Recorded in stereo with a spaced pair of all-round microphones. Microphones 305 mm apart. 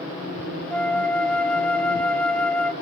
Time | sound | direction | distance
0.7 | a flute | 5° left (ahead or behind) | 0.7 m